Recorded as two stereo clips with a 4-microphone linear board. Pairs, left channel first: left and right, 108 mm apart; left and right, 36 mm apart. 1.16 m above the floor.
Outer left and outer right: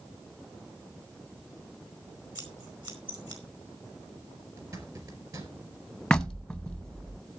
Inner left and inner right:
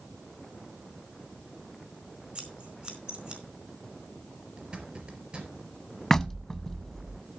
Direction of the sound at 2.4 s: 40° right (ahead or behind).